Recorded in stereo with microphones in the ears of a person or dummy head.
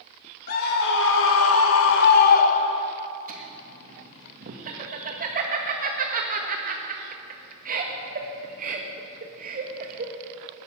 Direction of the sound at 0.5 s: 50° left (ahead or behind).